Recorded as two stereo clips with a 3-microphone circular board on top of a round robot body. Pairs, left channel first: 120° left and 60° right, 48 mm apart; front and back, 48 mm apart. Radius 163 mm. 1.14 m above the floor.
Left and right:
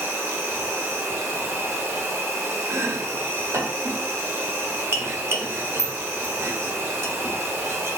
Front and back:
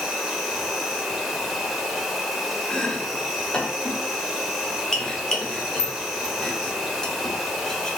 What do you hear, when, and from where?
0.0 s an insect: 95° right, 0.9 m
2.7 s chopping: 70° right, 0.8 m